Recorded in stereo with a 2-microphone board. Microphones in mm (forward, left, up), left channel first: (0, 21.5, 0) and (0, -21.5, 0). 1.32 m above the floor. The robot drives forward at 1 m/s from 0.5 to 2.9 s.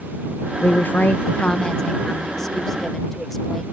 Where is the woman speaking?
45° left (ahead or behind); by 3.6 s 10° left (ahead or behind).